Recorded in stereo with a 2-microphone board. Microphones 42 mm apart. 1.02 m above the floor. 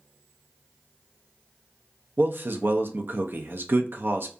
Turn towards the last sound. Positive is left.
turn(degrees=-55)  # may be behind; listen again after turning